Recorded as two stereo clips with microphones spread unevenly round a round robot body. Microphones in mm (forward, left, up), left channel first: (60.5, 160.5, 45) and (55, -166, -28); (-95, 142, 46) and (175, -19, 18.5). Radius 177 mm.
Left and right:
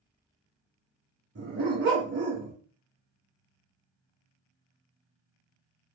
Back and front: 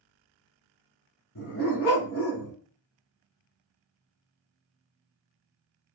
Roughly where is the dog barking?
Behind right.